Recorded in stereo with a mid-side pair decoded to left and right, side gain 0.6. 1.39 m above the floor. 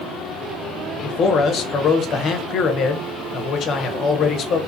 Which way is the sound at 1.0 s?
50° left.